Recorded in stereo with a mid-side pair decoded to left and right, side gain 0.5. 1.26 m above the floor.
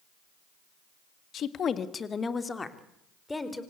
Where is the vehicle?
I don't hear a vehicle.